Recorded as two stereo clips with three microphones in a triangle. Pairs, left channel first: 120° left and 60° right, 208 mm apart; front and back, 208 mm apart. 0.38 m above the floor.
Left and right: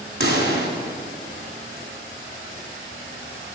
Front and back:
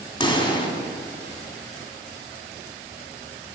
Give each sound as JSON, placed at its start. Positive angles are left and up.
{"t": 0.2, "sound": "a pop", "azimuth_deg": -65, "distance_m": 1.4}